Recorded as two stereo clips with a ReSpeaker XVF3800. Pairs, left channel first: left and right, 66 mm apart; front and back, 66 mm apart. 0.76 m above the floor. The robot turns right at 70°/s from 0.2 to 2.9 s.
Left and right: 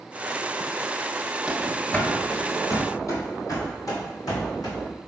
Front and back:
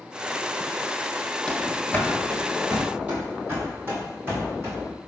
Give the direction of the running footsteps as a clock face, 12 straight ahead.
2 o'clock.